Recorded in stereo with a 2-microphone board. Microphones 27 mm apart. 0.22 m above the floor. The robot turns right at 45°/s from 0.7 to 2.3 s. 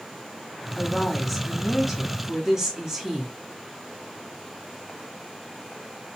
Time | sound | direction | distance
0.8 | a woman speaking | 15° left (ahead or behind) | 1.2 m